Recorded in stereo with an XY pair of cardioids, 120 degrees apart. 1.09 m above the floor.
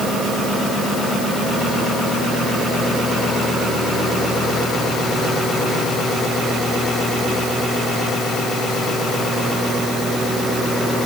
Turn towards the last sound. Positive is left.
No sound to turn to.